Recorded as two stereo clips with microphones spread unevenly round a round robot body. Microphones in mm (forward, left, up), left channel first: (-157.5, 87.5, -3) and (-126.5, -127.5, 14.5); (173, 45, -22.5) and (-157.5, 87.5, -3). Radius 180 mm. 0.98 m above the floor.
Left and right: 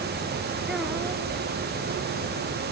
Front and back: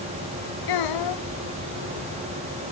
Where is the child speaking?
5° left.